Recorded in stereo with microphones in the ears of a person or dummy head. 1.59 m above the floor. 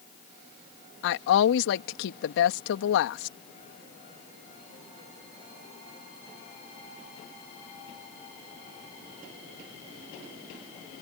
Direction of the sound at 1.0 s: 65° left (ahead or behind).